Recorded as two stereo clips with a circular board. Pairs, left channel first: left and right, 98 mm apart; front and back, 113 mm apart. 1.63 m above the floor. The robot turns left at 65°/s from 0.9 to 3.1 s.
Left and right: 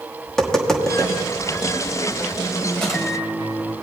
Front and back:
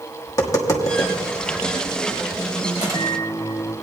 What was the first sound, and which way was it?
Tapping, 10° left.